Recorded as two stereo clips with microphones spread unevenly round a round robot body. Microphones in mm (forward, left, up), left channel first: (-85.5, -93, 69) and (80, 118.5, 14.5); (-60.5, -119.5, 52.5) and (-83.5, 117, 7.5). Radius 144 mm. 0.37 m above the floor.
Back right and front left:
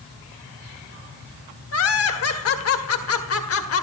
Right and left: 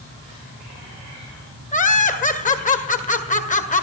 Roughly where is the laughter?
Behind right.